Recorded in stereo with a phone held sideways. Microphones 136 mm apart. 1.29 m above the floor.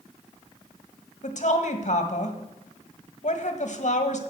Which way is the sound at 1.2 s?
60° left (ahead or behind).